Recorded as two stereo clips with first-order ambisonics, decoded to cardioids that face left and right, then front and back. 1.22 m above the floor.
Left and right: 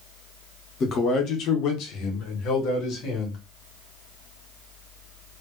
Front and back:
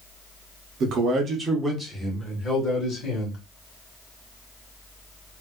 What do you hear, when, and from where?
0.8 s a man speaking: 145° left, 0.8 m; by 3.4 s 60° left, 1.4 m